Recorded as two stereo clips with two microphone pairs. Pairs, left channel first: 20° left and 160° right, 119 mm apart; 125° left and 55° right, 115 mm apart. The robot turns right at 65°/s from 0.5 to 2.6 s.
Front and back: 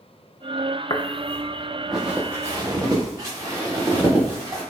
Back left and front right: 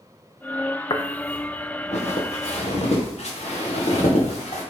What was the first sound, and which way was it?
Footsteps, 75° left.